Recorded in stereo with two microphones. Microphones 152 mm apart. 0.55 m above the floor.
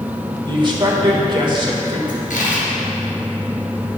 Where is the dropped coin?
70° left (ahead or behind), 1.9 m.